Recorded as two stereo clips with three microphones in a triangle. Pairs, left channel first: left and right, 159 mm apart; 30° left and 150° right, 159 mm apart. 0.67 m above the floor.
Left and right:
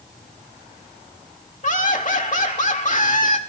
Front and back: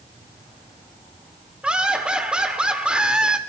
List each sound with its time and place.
1.6 s laughter: 125° left, 1.8 m